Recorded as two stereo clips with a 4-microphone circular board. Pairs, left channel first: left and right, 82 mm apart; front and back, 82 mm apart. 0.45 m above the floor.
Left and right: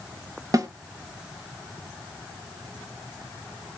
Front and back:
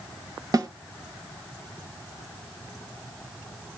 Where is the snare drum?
135° right, 0.7 m.